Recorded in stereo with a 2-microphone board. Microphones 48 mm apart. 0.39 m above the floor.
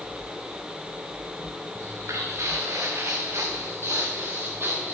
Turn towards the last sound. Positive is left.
turn(degrees=-45)  # may be behind; listen again after turning